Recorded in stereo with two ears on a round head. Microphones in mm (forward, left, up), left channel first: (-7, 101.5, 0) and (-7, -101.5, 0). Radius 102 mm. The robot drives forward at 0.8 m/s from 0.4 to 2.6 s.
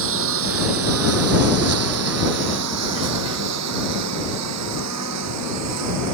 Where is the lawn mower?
65° right (ahead or behind); by 6.1 s 85° right.